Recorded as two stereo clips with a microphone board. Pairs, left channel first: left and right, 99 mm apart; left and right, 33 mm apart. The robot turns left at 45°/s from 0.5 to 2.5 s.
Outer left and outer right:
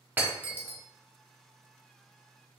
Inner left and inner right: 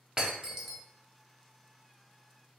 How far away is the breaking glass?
About 0.9 m.